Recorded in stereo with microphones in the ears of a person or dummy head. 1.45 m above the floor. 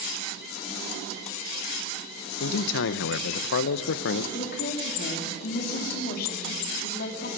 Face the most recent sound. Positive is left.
turn(degrees=55)  # may be behind; listen again after turning